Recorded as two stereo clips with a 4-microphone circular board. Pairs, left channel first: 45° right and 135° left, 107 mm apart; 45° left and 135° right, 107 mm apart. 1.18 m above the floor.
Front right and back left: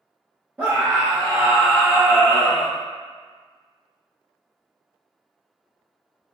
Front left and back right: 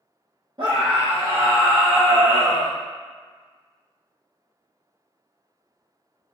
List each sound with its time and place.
0.6 s a scream: 155° right, 0.7 m; by 2.7 s 165° right, 1.9 m